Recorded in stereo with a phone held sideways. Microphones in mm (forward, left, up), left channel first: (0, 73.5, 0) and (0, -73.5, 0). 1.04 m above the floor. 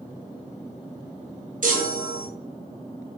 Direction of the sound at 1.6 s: 70° right (ahead or behind).